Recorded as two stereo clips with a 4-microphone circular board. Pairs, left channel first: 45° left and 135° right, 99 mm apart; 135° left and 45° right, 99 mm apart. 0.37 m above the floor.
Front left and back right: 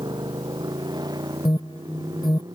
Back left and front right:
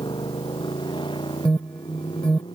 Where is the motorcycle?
175° left.